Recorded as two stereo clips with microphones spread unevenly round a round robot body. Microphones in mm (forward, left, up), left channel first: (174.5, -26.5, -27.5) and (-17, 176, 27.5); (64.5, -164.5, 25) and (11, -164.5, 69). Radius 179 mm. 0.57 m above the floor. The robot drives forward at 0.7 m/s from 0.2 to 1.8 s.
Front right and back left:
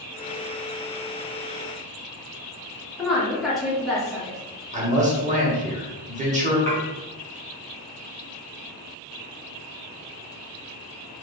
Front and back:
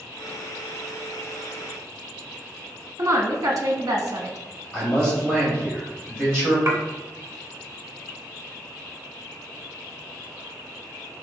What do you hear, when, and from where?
3.0 s a woman speaking: 115° right, 0.8 m
4.7 s a man speaking: 70° left, 1.2 m
6.7 s dishes clattering: 150° right, 1.1 m